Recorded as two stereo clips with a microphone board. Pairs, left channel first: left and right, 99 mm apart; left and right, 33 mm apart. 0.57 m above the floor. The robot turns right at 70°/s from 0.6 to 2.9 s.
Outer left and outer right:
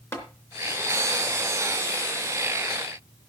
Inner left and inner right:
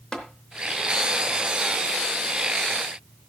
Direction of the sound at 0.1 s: 30° left (ahead or behind).